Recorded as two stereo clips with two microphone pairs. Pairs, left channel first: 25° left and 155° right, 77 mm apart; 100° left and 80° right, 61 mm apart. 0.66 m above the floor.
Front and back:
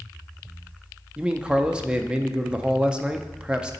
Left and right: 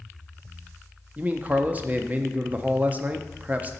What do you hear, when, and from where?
1.2 s a man speaking: 90° right, 0.5 m